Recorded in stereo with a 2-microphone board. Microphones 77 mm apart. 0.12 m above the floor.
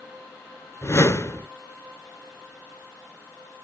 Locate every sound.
0.8 s a whoosh: 35° left (ahead or behind), 0.7 m